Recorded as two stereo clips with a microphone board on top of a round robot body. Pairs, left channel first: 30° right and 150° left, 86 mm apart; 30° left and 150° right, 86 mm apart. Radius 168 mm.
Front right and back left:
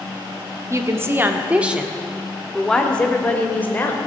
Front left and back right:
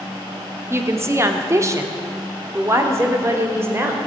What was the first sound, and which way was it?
A woman speaking, 175° left.